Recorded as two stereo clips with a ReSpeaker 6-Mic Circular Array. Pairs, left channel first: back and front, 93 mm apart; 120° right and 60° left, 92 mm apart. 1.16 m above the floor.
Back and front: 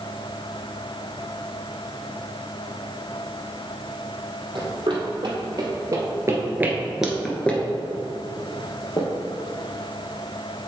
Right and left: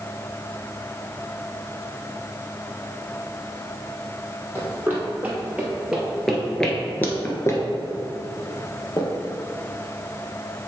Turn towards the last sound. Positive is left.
turn(degrees=-155)